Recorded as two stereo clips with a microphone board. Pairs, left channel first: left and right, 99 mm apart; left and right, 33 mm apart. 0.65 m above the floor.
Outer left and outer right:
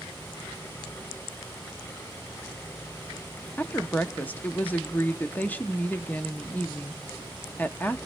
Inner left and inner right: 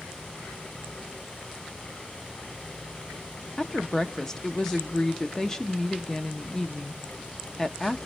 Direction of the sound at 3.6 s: 15° left (ahead or behind).